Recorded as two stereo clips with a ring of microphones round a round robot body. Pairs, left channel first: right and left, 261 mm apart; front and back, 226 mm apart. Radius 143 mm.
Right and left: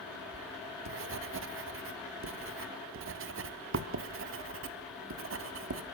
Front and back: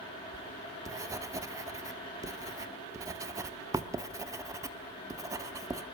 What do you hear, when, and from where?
0.3 s writing: 105° left, 1.4 m